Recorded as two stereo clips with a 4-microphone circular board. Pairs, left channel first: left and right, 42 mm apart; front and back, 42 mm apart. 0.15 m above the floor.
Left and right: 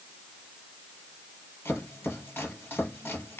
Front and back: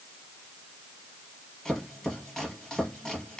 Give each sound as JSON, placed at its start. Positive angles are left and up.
{"t": 1.6, "sound": "chopping", "azimuth_deg": 80, "distance_m": 3.0}